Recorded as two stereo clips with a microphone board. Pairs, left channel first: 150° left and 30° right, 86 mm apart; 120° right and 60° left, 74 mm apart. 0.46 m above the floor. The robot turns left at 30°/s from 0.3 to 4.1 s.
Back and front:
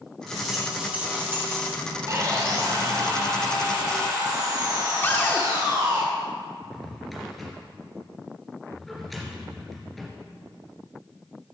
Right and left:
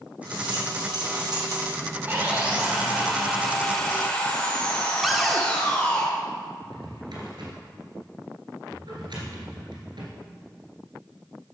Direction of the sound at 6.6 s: 60° left.